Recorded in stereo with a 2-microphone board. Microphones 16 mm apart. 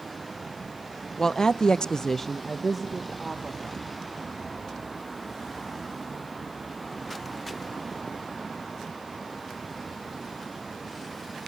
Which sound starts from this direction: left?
A woman speaking, at 1.2 s.